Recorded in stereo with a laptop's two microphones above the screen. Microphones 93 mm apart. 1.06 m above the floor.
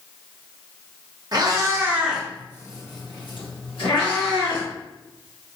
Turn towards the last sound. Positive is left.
turn(degrees=75)  # may be behind; listen again after turning